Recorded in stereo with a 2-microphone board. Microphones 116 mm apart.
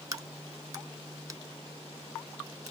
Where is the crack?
30° right (ahead or behind), 0.6 m.